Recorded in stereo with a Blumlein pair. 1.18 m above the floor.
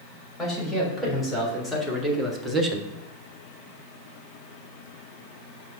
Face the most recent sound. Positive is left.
turn(degrees=-20)